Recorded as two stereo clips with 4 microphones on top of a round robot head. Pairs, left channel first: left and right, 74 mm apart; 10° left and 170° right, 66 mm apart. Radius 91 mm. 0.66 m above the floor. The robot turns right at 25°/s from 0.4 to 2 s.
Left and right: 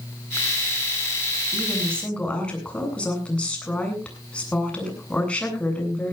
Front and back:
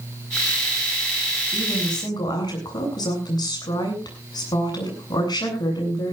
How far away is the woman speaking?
About 8.5 m.